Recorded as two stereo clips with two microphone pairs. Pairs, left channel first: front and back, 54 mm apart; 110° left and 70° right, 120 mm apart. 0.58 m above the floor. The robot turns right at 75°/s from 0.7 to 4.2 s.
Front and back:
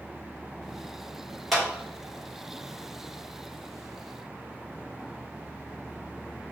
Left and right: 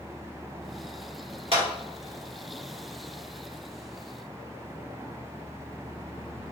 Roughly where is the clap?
Right.